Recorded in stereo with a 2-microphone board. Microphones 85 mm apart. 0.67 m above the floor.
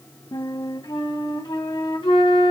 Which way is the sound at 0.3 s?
70° left (ahead or behind).